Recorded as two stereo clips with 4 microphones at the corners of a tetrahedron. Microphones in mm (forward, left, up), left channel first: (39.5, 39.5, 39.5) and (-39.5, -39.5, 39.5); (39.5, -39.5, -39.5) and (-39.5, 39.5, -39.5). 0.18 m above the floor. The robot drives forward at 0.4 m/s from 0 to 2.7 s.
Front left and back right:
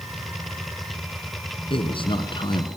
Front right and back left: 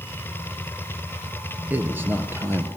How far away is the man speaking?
About 2.5 m.